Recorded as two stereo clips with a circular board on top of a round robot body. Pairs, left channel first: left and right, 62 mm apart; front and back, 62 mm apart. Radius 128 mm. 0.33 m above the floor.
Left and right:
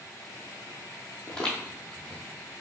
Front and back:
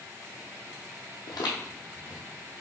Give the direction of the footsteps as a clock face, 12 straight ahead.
12 o'clock.